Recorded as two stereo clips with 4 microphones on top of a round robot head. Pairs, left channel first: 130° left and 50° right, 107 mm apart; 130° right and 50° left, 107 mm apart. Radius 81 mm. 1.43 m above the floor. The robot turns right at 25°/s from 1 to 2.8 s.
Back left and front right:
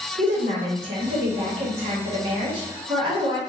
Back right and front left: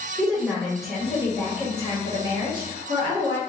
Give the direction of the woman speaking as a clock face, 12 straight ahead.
1 o'clock.